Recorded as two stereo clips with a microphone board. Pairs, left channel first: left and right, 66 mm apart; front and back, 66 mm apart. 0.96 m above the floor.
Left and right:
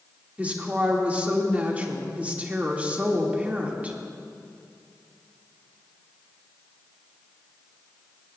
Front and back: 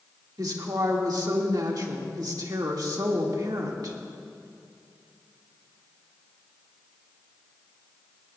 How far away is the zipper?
No zipper in this recording.